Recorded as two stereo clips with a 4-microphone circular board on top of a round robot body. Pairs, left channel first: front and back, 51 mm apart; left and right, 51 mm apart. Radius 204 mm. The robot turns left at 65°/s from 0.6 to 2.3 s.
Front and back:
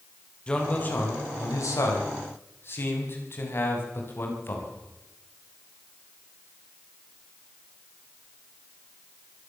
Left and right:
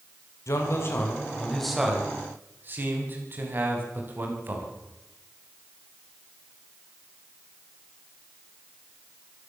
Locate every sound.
0.5 s a man speaking: 70° left, 6 m; by 4.7 s 40° right, 6 m